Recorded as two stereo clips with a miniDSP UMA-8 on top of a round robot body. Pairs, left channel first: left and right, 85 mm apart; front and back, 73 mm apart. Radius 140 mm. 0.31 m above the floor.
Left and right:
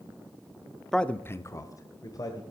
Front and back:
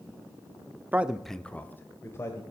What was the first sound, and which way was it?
A man speaking, 170° left.